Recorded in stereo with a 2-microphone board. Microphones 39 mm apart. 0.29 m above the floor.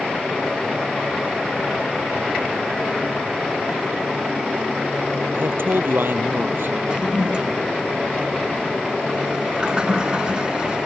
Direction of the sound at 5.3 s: 70° right (ahead or behind).